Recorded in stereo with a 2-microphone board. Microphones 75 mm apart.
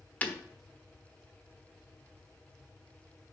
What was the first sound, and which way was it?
Breaking glass, 20° left (ahead or behind).